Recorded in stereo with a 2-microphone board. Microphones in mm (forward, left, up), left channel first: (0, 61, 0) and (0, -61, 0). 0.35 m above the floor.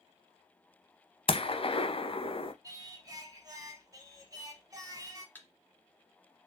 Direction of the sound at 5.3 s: 15° left (ahead or behind).